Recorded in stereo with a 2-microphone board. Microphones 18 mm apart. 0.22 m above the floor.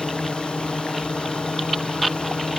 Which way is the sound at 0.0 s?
75° left (ahead or behind).